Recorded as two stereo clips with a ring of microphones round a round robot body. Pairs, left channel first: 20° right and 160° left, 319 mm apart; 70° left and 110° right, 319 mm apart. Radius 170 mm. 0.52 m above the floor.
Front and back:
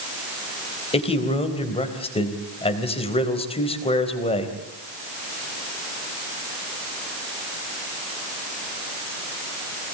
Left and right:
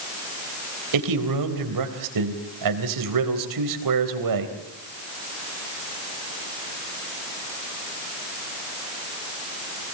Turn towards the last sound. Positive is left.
turn(degrees=-95)